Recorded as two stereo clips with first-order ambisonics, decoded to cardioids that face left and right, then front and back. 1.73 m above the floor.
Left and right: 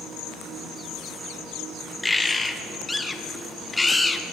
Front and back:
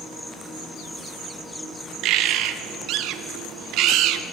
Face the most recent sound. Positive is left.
turn(degrees=170)